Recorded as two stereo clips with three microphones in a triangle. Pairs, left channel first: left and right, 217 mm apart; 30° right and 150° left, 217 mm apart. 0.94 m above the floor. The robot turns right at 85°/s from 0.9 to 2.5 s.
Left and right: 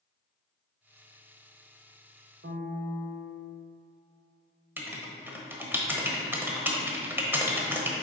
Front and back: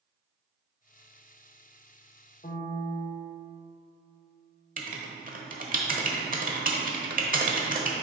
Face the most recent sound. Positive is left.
turn(degrees=-170)